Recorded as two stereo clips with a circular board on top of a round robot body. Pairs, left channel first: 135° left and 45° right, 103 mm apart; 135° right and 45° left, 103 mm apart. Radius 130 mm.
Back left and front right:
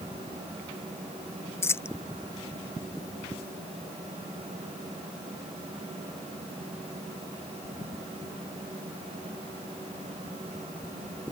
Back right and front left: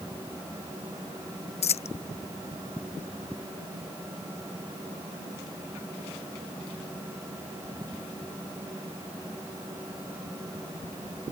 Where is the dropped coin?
155° right.